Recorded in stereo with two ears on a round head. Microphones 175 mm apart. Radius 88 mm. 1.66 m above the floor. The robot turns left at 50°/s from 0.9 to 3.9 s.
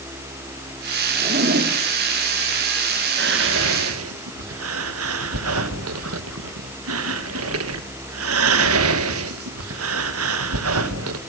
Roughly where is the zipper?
Right.